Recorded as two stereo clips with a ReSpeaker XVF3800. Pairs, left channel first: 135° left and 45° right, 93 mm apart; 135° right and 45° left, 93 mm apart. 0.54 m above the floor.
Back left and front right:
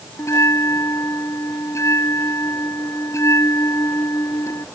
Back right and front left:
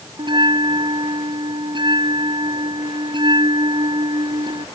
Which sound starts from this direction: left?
A bell, at 0.2 s.